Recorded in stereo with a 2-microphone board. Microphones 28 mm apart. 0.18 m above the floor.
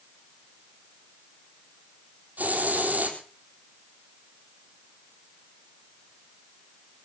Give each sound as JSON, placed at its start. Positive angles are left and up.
{"t": 2.4, "sound": "a hiss", "side_deg": -75, "distance_m": 3.5}